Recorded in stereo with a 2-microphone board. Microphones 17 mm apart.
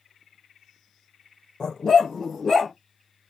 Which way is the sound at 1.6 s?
55° left (ahead or behind).